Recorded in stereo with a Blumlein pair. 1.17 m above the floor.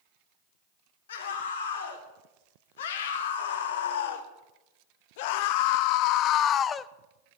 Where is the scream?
60° left, 3.5 m; by 6.9 s 15° left, 0.6 m.